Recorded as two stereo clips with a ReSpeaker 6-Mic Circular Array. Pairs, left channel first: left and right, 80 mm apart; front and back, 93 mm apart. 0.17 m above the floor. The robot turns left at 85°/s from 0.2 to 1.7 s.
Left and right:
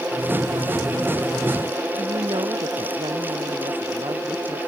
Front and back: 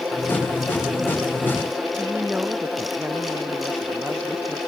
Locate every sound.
2.0 s a woman speaking: 105° right